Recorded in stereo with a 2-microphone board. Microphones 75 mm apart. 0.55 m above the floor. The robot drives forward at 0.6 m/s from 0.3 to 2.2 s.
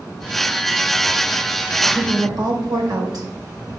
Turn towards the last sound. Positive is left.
turn(degrees=-70)  # may be behind; listen again after turning